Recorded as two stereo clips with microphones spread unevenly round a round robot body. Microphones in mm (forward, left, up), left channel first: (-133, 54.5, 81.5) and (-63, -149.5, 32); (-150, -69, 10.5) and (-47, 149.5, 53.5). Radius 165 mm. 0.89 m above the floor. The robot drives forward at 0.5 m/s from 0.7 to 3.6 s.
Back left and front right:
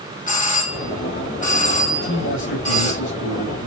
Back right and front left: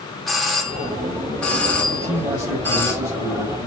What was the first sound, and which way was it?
A doorbell, 165° left.